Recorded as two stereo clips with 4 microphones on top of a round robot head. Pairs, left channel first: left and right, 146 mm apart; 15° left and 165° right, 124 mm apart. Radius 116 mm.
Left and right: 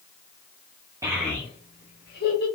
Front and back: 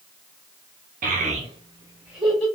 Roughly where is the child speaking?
Behind.